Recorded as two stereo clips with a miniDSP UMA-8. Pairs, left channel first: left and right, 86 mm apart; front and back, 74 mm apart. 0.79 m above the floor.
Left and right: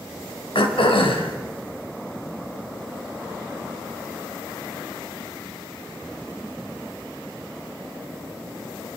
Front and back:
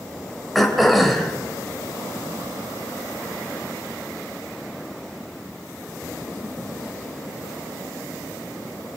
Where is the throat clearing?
90° left, 3 m.